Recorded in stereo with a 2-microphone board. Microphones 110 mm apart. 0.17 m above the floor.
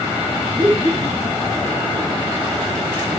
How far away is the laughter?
About 9.5 m.